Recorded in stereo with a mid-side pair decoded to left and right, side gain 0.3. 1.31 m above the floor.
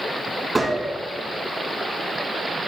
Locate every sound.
0.6 s a gunshot: 25° right, 3 m